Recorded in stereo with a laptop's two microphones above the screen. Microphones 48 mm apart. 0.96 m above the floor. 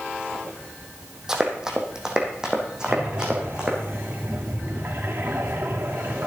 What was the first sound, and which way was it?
Running footsteps, 10° right (ahead or behind).